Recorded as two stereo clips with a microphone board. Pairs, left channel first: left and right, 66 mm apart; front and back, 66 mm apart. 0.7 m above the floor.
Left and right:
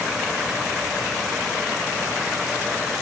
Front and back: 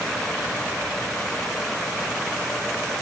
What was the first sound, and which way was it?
Only background noise.